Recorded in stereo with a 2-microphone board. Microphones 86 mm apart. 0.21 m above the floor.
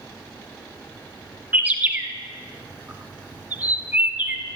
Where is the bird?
20° right (ahead or behind), 0.8 m.